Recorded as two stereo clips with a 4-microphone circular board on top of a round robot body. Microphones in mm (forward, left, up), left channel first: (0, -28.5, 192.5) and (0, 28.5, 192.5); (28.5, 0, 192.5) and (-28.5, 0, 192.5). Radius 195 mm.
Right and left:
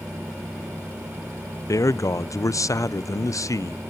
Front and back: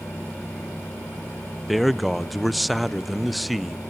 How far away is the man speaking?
About 0.6 m.